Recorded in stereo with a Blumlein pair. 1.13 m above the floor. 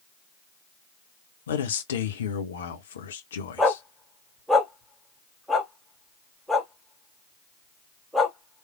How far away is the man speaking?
About 1.0 m.